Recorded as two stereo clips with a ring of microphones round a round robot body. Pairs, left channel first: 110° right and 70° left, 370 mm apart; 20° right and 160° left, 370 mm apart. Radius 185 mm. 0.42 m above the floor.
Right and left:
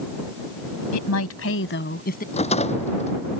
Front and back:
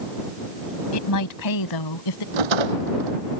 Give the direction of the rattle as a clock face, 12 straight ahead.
6 o'clock.